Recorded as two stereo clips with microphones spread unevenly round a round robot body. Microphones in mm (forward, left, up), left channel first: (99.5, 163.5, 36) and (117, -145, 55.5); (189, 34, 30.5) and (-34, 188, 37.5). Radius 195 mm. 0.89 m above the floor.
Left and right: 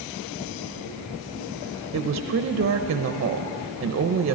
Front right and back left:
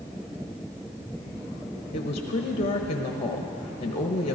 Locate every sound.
1.9 s a woman speaking: 80° right, 0.8 m